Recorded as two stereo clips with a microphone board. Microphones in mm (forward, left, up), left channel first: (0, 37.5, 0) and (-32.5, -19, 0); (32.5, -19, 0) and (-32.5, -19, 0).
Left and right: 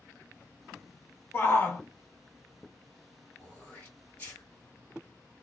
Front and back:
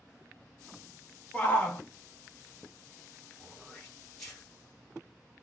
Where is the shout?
45° left, 0.9 m.